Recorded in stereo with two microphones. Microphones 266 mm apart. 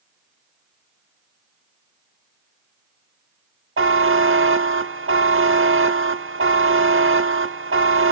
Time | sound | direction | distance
3.8 | a buzzer | 50° right (ahead or behind) | 0.8 m